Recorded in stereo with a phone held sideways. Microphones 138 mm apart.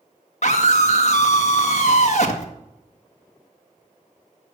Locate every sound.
0.4 s a scream: 55° left (ahead or behind), 1.7 m